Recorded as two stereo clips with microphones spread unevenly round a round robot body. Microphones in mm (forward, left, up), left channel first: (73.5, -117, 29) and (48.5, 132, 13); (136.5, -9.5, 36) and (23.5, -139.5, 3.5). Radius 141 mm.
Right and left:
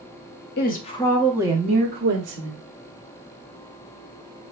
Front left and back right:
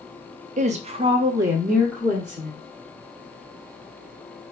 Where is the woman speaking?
130° right, 0.9 m; by 2.6 s 125° left, 1.5 m.